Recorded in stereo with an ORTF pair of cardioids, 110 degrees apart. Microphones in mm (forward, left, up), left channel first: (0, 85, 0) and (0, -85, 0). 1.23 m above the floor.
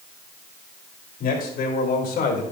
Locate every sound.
1.2 s a man speaking: 60° left, 5 m; by 2.4 s 65° left, 4 m